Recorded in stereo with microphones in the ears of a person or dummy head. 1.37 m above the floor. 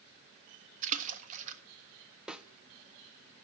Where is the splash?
40° right (ahead or behind), 1.4 m.